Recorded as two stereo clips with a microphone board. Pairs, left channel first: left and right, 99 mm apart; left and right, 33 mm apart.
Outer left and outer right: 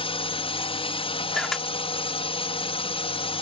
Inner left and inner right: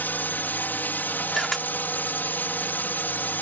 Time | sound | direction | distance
0.0 | a drone | 65° left (ahead or behind) | ?
1.3 | a camera shutter | 5° left (ahead or behind) | ?